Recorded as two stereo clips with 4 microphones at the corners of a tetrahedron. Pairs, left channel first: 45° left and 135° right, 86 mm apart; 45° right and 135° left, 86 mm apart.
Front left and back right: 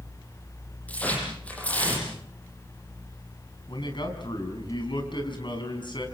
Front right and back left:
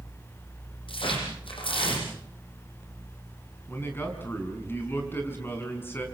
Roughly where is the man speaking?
Ahead.